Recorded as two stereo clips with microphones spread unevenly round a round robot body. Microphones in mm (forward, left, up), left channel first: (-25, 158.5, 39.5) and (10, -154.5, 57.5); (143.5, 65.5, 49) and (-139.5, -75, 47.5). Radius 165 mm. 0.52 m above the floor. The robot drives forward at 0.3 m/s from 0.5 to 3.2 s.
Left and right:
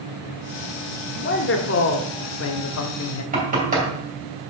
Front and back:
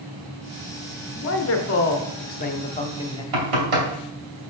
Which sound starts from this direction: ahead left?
A man speaking, at 1.1 s.